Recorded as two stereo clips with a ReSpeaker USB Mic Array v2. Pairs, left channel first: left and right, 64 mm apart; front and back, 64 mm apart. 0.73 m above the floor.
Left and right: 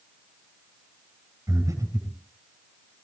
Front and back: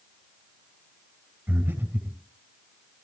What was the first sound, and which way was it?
Breathing, 120° right.